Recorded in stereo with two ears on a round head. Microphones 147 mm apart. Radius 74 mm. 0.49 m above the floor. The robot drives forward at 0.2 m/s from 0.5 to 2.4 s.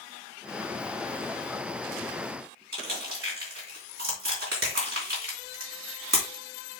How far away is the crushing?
About 3.5 m.